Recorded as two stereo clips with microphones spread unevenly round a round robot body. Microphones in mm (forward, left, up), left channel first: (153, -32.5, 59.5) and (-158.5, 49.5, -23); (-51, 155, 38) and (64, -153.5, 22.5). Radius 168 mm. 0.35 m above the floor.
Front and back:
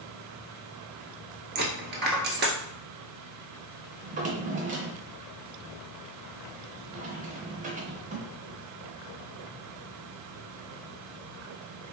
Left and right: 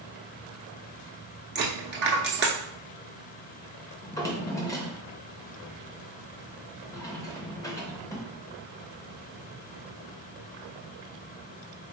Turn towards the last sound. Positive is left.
turn(degrees=-170)